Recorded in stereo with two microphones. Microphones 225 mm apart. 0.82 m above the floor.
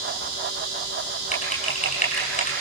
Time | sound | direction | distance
1.3 | typing on a keyboard | 35° left (ahead or behind) | 5 m